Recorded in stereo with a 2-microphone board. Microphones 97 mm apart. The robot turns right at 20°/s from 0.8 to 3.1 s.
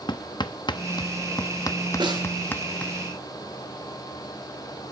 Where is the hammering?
50° left (ahead or behind), 0.9 m; by 2.9 s 15° left (ahead or behind), 0.9 m.